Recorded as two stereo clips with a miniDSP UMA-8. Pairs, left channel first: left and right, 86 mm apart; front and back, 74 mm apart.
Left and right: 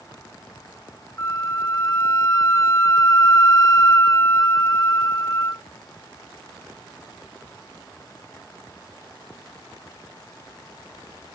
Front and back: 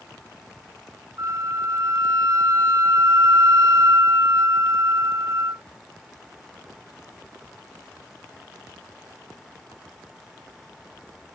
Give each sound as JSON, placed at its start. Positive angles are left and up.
{"t": 1.2, "sound": "a flute", "azimuth_deg": 145}